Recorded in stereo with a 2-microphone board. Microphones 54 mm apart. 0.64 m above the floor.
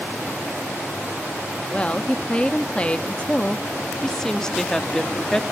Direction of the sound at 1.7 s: 20° left (ahead or behind).